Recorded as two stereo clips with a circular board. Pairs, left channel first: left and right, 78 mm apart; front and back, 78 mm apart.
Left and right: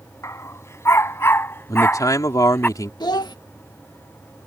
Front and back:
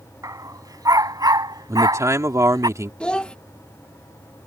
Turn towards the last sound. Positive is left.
turn(degrees=75)